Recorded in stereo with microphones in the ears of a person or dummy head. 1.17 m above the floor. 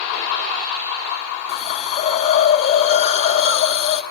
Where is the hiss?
35° left (ahead or behind), 0.9 m.